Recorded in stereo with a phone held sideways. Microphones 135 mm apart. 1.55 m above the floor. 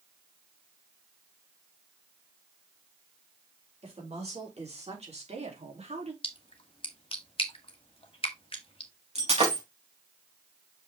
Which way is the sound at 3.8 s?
50° right (ahead or behind).